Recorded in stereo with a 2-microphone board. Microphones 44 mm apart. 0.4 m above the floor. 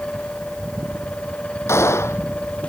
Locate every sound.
1.7 s a gunshot: 80° left